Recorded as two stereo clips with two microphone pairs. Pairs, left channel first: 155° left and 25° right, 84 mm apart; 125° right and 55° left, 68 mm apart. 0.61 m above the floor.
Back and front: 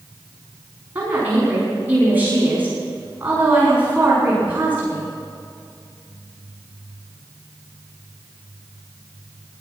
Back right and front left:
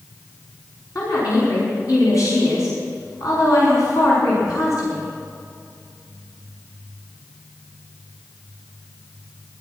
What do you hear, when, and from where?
0.9 s a woman speaking: 100° right, 5 m